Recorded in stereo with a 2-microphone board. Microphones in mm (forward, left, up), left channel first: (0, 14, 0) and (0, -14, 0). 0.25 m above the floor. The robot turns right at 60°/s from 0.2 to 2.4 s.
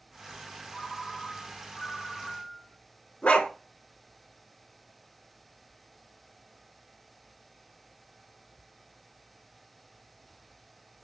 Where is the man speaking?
No man speaking in this recording.